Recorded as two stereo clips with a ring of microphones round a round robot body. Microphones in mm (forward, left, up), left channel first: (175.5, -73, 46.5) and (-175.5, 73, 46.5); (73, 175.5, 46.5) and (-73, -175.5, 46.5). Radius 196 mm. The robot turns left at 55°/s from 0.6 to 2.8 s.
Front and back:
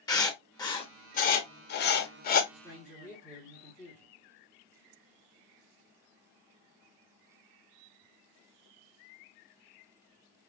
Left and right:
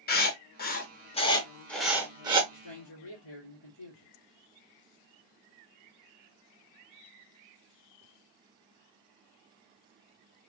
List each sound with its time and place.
0.1 s writing: 45° left, 0.7 m; by 2.4 s 55° right, 0.7 m
2.5 s a man speaking: 80° left, 1.7 m; by 4.1 s 65° left, 1.7 m